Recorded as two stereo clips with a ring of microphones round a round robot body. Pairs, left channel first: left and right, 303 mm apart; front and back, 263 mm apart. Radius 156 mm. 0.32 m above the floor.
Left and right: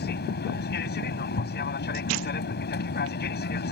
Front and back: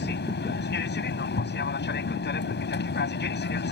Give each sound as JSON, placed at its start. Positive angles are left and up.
{"t": 0.0, "sound": "an aircraft", "azimuth_deg": 40}